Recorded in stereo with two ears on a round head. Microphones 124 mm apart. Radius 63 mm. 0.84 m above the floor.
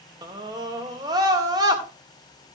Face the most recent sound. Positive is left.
turn(degrees=-30)  # may be behind; listen again after turning